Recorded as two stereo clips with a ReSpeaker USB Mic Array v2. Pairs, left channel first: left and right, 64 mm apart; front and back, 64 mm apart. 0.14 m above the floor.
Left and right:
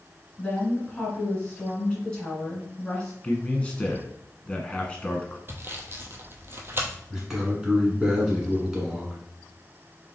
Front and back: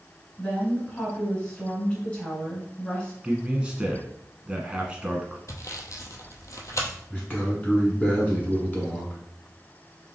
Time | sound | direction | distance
0.4 | a woman speaking | 40° left | 1.6 m
3.2 | a man speaking | 125° left | 1.1 m
5.5 | sawing | 35° right | 0.8 m
7.1 | a man speaking | 15° right | 1.6 m